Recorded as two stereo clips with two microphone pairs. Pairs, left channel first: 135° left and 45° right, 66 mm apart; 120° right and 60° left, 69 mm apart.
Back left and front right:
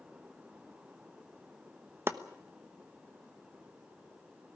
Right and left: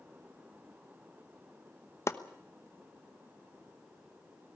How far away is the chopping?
About 1.1 m.